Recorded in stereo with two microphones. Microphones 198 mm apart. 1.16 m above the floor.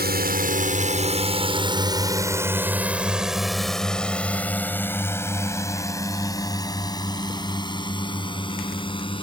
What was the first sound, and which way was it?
A drone, 55° right (ahead or behind).